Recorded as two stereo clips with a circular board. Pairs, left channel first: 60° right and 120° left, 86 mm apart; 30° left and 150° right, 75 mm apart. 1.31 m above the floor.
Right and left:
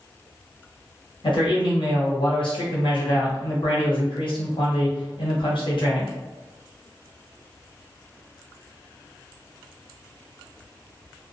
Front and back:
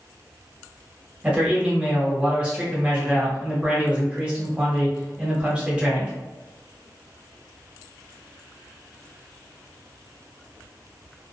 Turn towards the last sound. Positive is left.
turn(degrees=-75)